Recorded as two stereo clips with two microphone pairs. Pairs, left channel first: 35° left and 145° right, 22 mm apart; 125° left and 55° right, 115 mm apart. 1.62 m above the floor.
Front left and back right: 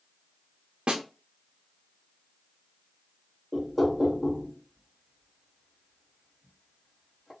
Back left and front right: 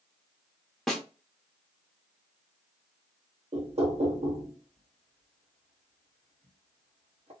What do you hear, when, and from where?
0.9 s a snare drum: 150° right, 0.8 m
3.5 s knocking: 45° right, 0.9 m